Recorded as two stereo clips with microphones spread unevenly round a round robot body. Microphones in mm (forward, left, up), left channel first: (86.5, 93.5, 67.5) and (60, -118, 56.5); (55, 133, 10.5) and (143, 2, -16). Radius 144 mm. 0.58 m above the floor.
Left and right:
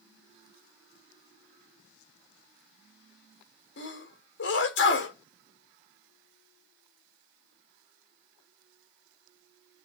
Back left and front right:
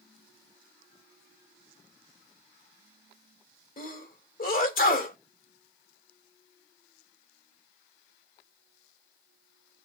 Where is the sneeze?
110° left, 2.5 m.